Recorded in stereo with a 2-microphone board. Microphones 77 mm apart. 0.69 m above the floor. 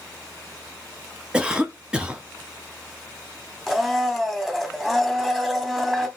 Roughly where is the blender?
Centre.